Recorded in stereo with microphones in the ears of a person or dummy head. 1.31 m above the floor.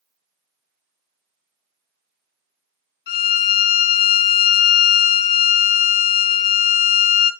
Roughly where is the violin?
Left.